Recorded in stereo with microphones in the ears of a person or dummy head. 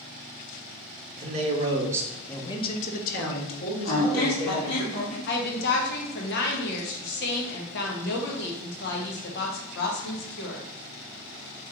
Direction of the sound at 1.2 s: 40° right (ahead or behind).